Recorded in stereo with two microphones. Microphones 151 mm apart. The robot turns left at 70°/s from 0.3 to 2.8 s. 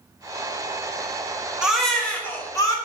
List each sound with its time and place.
1.6 s a baby crying: 5° right (ahead or behind), 0.6 m; by 2.8 s 25° left (ahead or behind), 0.6 m